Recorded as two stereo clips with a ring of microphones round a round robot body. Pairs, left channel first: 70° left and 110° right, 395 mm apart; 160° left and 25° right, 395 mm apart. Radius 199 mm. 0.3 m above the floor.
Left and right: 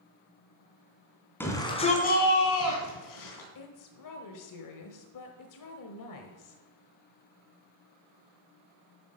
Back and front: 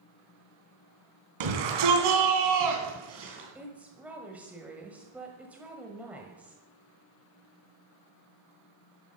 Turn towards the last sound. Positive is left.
turn(degrees=65)